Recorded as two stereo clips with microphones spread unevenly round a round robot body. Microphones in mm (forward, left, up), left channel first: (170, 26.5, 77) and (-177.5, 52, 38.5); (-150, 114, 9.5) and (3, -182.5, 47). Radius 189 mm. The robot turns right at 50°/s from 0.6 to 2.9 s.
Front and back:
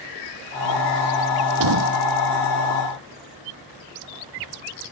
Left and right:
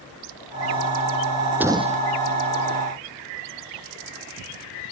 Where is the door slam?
150° right; by 2.0 s 125° right.